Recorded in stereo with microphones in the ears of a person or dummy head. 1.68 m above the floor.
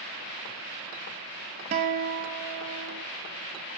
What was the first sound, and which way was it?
A guitar, 40° right (ahead or behind).